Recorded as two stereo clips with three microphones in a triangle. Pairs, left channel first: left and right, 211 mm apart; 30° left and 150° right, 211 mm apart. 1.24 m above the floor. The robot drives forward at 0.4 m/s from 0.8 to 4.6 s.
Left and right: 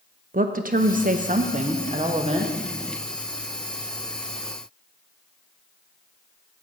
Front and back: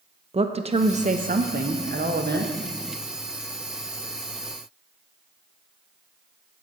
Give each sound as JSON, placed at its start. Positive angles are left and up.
{"t": 0.3, "sound": "a woman speaking", "azimuth_deg": -105, "distance_m": 0.6}